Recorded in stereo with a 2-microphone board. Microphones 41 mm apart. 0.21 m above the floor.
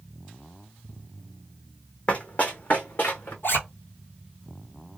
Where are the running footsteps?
30° left (ahead or behind), 0.8 m; by 3.3 s 50° left (ahead or behind), 1.3 m.